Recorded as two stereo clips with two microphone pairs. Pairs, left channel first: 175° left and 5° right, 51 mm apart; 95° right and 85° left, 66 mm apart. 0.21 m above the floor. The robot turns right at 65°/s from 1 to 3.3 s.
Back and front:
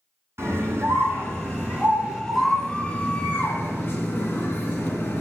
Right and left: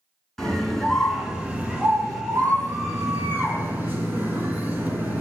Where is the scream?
10° right, 3 m; by 5.2 s 140° left, 3 m.